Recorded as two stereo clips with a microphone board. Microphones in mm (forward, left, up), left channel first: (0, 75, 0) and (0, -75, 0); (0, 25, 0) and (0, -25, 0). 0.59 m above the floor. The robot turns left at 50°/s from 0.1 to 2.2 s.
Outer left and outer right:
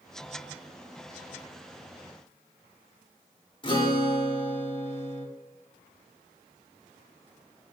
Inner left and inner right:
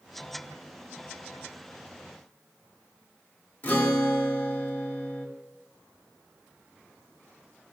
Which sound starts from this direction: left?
A guitar, at 3.6 s.